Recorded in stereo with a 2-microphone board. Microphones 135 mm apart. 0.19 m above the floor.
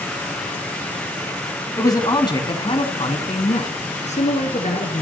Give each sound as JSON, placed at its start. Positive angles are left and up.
{"t": 1.8, "sound": "a man speaking", "side_deg": 25, "distance_m": 1.1}